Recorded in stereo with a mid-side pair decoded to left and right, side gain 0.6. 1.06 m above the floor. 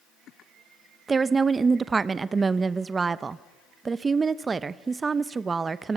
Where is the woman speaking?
25° right, 0.6 m.